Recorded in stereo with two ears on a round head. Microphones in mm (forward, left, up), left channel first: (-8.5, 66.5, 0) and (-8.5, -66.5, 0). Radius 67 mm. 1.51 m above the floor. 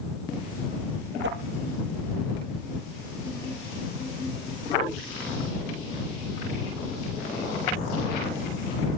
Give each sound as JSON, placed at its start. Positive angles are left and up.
{"t": 1.2, "sound": "a whoosh", "side_deg": -80}